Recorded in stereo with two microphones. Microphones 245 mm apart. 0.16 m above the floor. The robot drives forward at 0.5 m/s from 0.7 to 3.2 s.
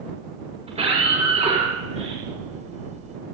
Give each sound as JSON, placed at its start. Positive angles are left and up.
{"t": 0.7, "sound": "a scream", "side_deg": -25, "distance_m": 7.5}